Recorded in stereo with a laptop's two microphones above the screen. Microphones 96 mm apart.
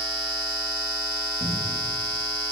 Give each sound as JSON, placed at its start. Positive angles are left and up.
{"t": 1.4, "sound": "a cupboard door", "side_deg": -70, "distance_m": 1.2}